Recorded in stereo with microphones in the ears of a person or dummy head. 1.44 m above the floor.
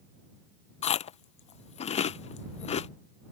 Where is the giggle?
No giggle in this recording.